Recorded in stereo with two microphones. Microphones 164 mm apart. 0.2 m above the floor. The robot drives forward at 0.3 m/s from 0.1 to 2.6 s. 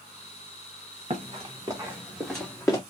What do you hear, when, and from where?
1.1 s running footsteps: 40° right (ahead or behind), 1.4 m; by 2.8 s 20° left (ahead or behind), 1.0 m